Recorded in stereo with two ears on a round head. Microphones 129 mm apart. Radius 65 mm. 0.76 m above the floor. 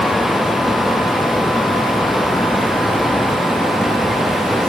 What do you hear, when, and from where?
Only background noise.